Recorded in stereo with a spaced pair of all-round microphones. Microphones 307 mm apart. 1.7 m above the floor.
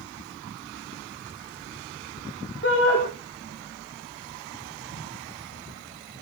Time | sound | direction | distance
2.6 | a shout | 40° left (ahead or behind) | 3.5 m